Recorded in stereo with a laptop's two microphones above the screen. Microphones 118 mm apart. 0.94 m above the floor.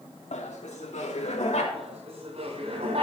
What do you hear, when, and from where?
0.3 s laughter: 80° left, 1.9 m; by 1.6 s 75° left (ahead or behind), 3.5 m
1.7 s laughter: 60° right (ahead or behind), 8 m